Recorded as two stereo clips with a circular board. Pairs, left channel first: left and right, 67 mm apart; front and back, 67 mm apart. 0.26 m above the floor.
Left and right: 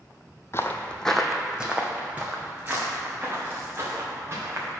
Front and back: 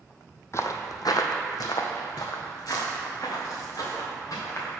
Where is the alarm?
No alarm in this recording.